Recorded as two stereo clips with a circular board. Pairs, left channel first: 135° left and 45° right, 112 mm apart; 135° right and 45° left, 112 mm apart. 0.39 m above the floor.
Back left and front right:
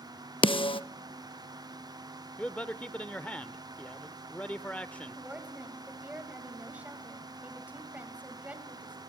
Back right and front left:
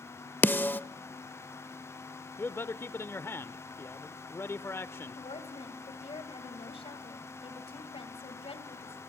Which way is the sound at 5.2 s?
120° right.